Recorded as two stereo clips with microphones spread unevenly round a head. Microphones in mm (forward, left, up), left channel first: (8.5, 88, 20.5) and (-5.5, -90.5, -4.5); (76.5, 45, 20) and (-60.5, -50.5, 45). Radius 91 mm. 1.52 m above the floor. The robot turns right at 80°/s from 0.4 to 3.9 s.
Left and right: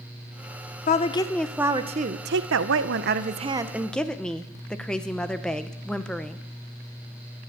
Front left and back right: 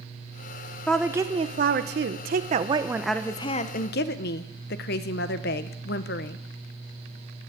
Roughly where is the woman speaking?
Behind left.